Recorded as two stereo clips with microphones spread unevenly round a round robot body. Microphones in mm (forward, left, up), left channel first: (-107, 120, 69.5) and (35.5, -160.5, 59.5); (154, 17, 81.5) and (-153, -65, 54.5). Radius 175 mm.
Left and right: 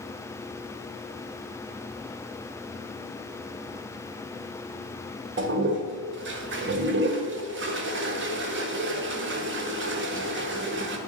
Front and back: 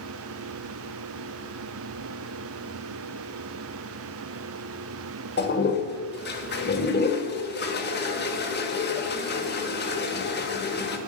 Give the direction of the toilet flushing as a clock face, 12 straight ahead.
1 o'clock.